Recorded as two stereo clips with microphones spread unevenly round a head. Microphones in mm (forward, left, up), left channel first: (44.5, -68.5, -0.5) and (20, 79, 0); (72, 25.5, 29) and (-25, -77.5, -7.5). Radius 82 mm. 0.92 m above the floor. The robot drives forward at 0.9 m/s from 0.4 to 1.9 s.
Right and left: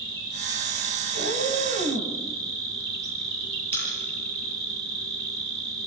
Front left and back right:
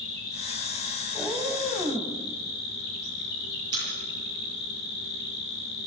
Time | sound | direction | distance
0.0 | an insect | 40° left | 5.5 m
1.1 | a cat meowing | 130° left | 2.5 m
3.7 | a pop | 160° left | 8.5 m